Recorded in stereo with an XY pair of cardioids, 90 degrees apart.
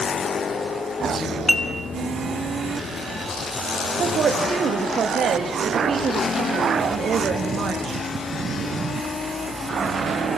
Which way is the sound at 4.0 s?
60° right.